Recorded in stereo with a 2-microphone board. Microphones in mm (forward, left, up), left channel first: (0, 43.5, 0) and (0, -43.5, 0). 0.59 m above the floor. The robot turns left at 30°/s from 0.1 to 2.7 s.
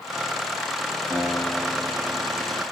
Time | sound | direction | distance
1.1 | a guitar | 10° left | 7 m